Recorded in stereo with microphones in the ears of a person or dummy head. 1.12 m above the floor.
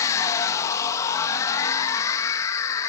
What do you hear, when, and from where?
0.0 s a machine running: 20° left (ahead or behind), 1.4 m